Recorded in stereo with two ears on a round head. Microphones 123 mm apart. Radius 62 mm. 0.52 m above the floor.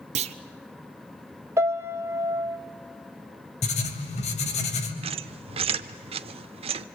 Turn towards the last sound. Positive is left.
turn(degrees=-45)  # may be behind; listen again after turning